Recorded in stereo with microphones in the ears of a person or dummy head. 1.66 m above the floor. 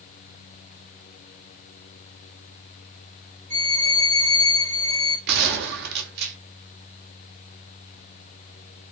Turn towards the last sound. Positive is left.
turn(degrees=-70)  # may be behind; listen again after turning